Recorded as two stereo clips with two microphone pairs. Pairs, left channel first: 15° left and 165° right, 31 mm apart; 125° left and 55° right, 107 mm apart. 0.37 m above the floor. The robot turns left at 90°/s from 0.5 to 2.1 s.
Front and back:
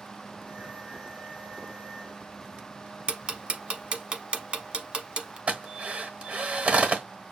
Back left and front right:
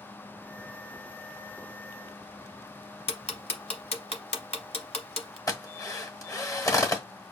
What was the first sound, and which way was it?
Ticking, 140° left.